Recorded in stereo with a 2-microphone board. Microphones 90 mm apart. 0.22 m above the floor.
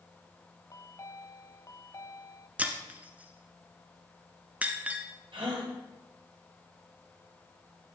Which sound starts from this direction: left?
A chime, at 0.7 s.